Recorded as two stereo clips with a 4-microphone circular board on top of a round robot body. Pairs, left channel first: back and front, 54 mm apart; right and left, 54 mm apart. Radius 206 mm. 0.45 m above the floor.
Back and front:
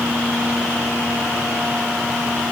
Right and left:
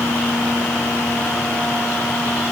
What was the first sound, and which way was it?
Only background noise.